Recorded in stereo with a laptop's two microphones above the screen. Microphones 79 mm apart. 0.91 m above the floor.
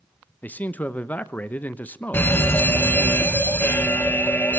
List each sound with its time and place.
0.4 s a man speaking: 20° left (ahead or behind), 0.8 m
2.1 s a fire alarm: 25° left (ahead or behind), 1.4 m